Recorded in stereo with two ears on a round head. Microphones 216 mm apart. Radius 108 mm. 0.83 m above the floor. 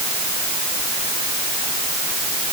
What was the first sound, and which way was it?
Only background noise.